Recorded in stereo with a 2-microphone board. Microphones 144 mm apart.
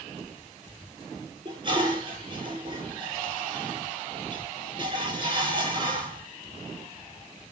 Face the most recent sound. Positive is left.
turn(degrees=-35)  # may be behind; listen again after turning